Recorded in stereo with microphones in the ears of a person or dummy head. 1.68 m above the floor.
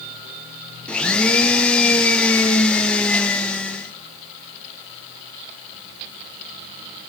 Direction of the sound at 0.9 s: 5° left (ahead or behind).